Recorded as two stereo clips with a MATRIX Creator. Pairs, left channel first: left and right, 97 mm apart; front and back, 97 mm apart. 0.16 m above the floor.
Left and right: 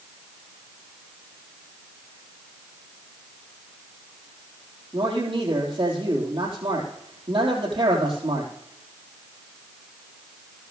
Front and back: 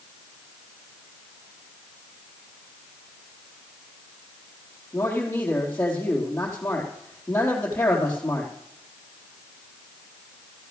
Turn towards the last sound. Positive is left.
turn(degrees=-70)